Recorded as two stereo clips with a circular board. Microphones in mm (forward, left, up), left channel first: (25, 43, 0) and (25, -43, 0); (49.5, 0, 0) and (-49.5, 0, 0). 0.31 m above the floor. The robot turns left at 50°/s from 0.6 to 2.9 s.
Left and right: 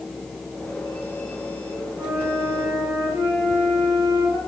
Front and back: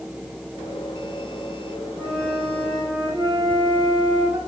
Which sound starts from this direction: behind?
A flute, at 2.0 s.